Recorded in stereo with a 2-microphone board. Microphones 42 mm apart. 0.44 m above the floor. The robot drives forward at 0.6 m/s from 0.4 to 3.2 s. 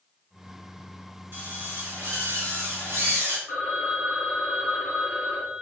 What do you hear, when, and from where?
1.3 s a drill: 55° right (ahead or behind), 2.5 m; by 3.4 s 80° right, 2.5 m
3.5 s a phone ringing: 75° right (ahead or behind), 3 m